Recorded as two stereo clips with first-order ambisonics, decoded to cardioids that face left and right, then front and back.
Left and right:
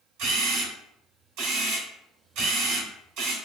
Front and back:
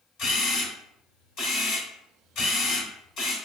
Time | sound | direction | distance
0.2 | a camera shutter | 55° right | 2.5 m